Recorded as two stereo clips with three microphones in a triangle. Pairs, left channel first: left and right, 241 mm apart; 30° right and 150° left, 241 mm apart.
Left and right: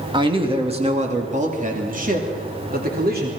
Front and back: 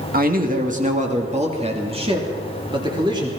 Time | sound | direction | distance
0.1 | a man speaking | 160° right | 2.0 m